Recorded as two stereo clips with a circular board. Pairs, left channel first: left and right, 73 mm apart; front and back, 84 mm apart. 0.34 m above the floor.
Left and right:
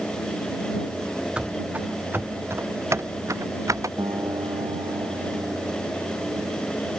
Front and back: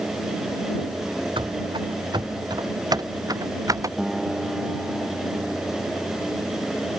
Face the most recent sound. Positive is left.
turn(degrees=-95)